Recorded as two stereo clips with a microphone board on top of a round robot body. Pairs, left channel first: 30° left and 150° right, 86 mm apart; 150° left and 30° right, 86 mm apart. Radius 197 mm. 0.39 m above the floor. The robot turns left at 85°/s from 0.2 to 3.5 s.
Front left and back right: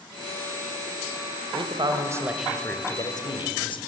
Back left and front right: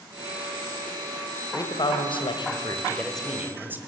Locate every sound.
1.5 s a man speaking: 155° right, 2.5 m; by 3.8 s 35° left, 2.5 m